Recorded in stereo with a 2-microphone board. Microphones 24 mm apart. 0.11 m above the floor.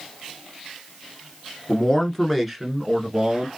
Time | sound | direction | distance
1.7 | a man speaking | 30° left (ahead or behind) | 1.4 m